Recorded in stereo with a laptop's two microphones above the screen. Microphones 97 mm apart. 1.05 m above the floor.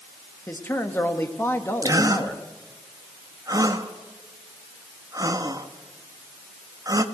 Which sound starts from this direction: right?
A gasp, at 1.8 s.